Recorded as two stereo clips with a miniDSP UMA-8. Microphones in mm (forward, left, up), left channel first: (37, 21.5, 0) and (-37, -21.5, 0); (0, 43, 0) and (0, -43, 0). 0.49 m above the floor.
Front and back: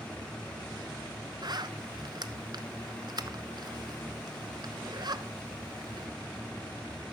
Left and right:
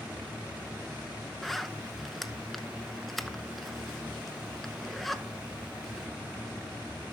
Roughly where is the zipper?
Behind.